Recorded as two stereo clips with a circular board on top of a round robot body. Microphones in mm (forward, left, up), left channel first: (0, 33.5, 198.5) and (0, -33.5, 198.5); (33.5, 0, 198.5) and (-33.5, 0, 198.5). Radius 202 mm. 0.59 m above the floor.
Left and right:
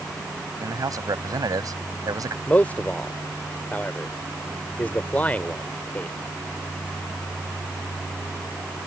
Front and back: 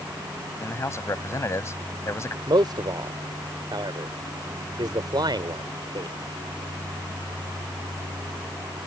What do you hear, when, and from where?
0.6 s a man speaking: 50° right
2.5 s a man speaking: 160° left